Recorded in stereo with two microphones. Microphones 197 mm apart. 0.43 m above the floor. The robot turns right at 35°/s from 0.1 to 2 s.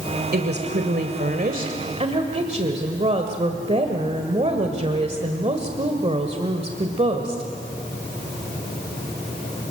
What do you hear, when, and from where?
0.3 s a woman speaking: 100° right, 1.7 m; by 7.4 s 40° right, 1.7 m